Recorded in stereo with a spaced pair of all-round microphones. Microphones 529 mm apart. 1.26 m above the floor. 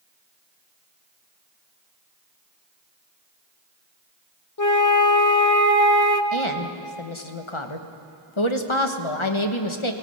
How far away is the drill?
No drill in this recording.